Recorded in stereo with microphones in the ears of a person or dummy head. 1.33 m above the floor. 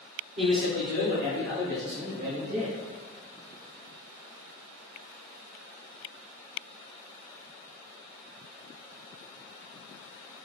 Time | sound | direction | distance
0.4 | a man speaking | 50° right (ahead or behind) | 1.9 m